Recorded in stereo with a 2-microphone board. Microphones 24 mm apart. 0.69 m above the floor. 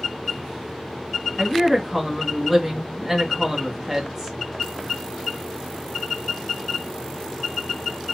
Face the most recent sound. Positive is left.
turn(degrees=-10)  # may be behind; listen again after turning